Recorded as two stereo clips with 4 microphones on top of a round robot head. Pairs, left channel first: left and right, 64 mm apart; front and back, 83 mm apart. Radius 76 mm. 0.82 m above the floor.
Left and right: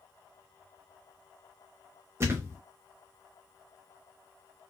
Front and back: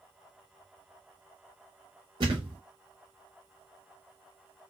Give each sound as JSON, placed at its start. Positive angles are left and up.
{"t": 2.2, "sound": "a thud", "azimuth_deg": -140, "distance_m": 0.9}